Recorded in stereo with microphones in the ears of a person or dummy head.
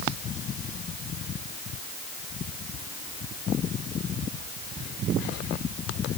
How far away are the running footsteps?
No running footsteps in this recording.